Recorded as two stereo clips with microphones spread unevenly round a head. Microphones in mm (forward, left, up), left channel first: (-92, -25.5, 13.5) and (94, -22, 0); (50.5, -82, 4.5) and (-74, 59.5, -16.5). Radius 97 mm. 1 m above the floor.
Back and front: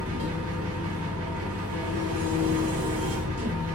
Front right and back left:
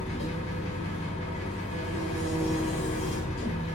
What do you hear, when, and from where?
0.0 s an engine running: 10° left, 0.9 m